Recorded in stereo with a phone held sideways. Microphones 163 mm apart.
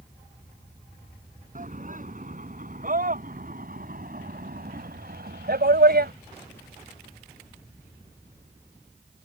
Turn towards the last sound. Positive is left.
turn(degrees=-70)  # may be behind; listen again after turning